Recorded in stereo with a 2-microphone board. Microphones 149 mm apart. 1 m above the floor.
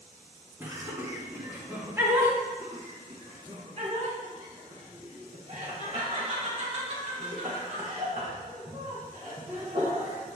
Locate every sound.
0.6 s laughter: 15° right (ahead or behind), 1.8 m
2.6 s laughter: 45° right (ahead or behind), 1.5 m